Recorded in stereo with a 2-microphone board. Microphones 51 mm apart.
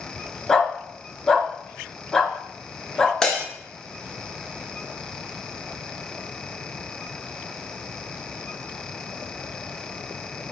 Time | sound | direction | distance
0.5 | a dog barking | 10° left (ahead or behind) | 0.6 m
3.2 | breaking glass | 10° left (ahead or behind) | 0.8 m